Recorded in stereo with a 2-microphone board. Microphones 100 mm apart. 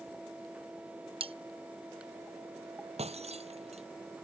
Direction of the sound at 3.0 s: 90° right.